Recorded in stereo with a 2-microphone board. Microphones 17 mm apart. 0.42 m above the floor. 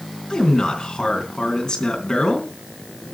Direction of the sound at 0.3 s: 50° left (ahead or behind).